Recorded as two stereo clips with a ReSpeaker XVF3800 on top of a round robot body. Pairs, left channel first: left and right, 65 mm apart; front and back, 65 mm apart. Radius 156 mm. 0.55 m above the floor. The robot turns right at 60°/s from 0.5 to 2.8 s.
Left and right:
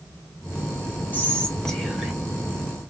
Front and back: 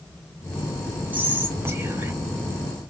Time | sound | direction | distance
1.1 | whispering | 130° left | 1.0 m